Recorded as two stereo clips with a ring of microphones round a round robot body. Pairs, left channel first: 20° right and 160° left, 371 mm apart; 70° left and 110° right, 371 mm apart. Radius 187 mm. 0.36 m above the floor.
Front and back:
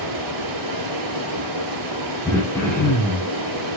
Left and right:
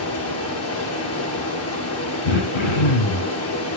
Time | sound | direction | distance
0.0 | running water | 120° left | 6.5 m
2.2 | throat clearing | 60° left | 3.5 m